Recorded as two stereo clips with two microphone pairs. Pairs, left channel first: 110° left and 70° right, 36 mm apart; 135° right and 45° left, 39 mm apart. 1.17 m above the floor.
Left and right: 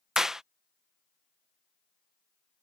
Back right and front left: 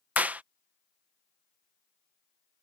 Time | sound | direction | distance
0.2 | a clap | 5° left | ?